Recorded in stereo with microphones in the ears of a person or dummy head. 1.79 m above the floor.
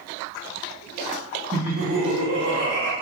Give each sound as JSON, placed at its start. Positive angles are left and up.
{"t": 1.5, "sound": "laughter", "side_deg": -30, "distance_m": 2.0}